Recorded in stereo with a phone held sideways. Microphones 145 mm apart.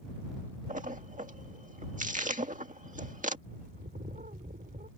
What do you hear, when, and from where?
0.7 s a splash: 60° right (ahead or behind)
3.5 s a bird: 80° right